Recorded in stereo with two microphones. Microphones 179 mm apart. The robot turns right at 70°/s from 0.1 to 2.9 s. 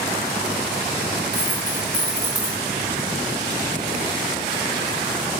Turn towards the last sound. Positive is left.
turn(degrees=-145)